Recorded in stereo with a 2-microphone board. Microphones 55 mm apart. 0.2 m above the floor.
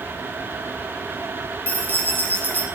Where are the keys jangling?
30° left (ahead or behind), 1.2 m.